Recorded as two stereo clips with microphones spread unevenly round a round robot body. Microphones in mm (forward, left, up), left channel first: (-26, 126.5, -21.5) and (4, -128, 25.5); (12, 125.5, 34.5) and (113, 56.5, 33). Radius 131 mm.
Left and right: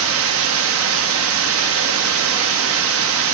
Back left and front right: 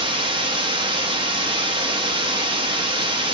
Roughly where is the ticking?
I don't hear ticking.